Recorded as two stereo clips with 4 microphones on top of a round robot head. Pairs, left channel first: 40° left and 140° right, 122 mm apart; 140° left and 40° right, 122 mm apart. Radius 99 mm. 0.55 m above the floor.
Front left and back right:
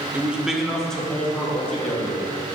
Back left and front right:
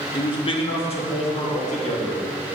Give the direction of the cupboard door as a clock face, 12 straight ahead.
No cupboard door in this recording.